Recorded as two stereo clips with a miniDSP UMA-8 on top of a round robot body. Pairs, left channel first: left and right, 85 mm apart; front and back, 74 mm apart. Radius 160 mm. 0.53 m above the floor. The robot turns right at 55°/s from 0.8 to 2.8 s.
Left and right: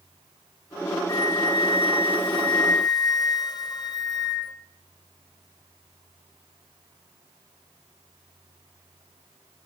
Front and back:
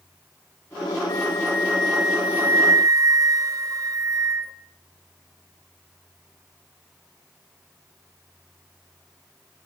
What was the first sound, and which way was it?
A flute, 40° left.